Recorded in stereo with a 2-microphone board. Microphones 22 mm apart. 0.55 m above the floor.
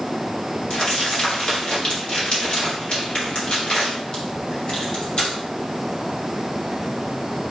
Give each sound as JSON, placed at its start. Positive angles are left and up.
{"t": 0.7, "sound": "crumpling", "side_deg": 45, "distance_m": 2.5}